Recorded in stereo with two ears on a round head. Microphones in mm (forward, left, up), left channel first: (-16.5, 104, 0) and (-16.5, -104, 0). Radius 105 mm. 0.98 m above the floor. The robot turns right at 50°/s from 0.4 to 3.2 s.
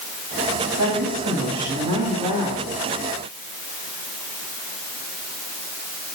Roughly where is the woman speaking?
Right.